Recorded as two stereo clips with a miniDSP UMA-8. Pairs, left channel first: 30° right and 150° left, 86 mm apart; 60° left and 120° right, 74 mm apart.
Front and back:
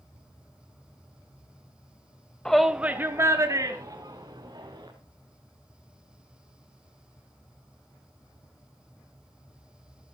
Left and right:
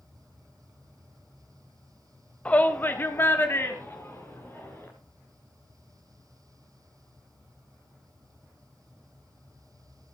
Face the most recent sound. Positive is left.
turn(degrees=120)